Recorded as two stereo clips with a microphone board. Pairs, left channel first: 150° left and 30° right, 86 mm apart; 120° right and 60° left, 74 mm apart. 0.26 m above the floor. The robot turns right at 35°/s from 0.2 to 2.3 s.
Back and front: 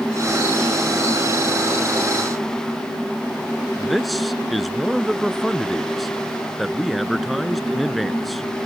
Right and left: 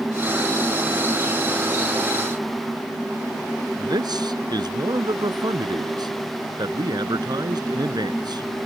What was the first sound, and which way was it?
A man speaking, 60° left.